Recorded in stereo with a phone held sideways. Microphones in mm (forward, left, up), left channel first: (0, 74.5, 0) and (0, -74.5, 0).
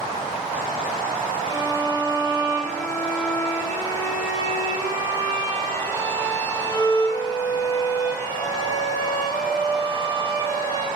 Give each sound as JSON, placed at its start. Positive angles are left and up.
{"t": 1.5, "sound": "a violin", "side_deg": 20, "distance_m": 1.2}